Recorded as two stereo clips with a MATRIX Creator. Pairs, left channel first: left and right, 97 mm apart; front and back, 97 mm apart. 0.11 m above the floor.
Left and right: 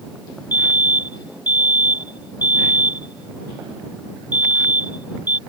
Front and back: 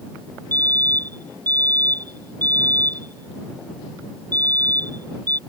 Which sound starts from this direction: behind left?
A fire alarm, at 0.5 s.